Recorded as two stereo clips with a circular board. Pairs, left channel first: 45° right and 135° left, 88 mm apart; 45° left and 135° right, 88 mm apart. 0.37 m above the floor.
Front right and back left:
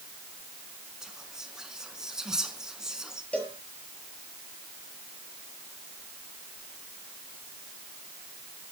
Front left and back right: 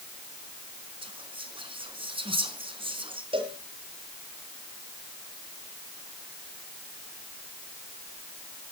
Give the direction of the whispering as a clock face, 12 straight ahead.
5 o'clock.